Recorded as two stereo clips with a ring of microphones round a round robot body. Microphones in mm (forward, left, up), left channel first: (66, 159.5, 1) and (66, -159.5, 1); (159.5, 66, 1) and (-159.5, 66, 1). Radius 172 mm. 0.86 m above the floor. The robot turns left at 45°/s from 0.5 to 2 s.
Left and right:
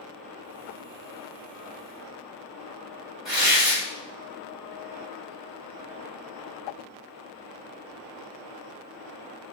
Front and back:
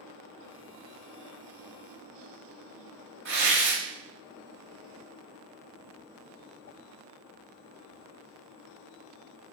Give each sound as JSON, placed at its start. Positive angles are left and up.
{"t": 3.2, "sound": "tearing paper", "azimuth_deg": 180, "distance_m": 1.3}